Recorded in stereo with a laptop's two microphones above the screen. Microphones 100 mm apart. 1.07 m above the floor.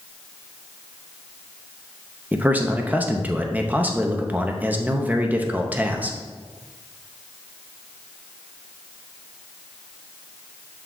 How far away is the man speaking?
About 0.6 m.